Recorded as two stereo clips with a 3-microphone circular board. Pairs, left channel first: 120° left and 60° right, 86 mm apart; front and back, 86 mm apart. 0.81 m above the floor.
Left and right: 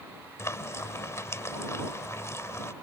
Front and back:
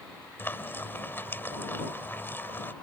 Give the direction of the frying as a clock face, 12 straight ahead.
10 o'clock.